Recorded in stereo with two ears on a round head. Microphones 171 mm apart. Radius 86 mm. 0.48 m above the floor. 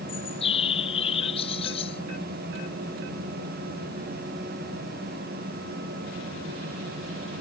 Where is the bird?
30° left (ahead or behind).